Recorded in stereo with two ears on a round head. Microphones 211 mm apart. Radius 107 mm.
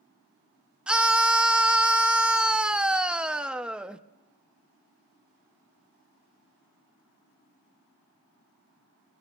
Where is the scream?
5° right (ahead or behind), 0.7 m.